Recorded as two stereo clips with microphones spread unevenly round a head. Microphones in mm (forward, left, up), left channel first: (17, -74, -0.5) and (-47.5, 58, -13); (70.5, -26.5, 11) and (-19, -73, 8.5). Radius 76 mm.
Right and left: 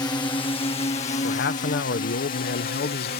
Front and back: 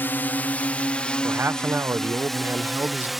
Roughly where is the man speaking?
Right.